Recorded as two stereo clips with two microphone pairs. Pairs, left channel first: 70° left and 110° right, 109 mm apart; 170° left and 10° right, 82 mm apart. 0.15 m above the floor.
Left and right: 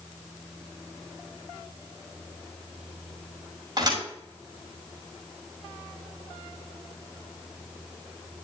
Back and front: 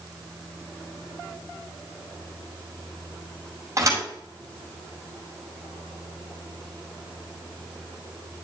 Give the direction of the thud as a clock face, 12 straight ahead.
2 o'clock.